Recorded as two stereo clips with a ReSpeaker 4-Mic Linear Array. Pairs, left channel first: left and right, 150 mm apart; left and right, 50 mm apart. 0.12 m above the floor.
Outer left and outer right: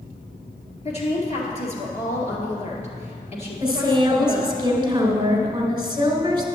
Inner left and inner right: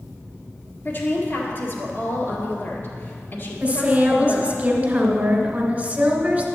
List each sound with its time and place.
0.8 s a woman speaking: 45° left (ahead or behind), 1.9 m
3.6 s a woman speaking: 30° right (ahead or behind), 1.3 m